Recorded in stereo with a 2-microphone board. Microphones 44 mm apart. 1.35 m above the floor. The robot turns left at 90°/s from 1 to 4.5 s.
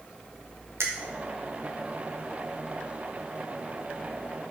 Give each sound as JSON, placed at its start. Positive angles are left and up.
{"t": 0.8, "sound": "a finger snap", "side_deg": -65, "distance_m": 0.9}